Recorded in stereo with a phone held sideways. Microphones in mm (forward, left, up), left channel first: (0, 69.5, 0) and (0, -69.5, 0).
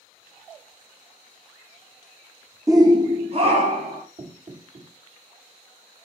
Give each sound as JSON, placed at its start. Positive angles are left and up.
{"t": 2.7, "sound": "a shout", "side_deg": -20, "distance_m": 0.7}
{"t": 4.2, "sound": "knocking", "side_deg": -55, "distance_m": 2.5}